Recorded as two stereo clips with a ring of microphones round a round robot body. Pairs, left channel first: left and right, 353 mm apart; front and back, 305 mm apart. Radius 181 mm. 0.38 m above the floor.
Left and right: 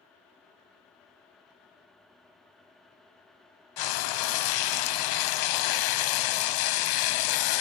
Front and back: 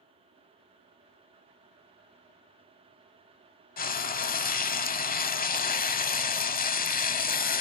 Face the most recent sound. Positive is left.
turn(degrees=65)